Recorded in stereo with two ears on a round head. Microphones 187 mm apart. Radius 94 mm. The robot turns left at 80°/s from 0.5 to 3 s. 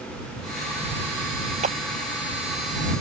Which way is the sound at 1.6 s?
35° right (ahead or behind).